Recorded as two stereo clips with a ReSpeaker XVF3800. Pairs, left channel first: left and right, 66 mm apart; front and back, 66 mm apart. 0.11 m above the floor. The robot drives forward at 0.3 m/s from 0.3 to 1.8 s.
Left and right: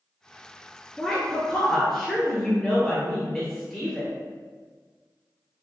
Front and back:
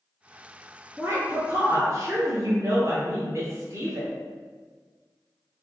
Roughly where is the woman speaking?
Behind.